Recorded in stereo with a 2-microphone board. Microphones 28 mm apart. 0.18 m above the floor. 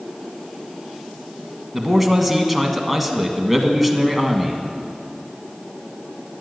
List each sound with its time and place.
1.7 s a man speaking: centre (ahead or behind), 1.4 m